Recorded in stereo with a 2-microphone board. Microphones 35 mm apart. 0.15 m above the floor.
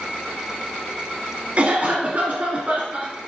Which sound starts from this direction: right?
A cough, at 1.6 s.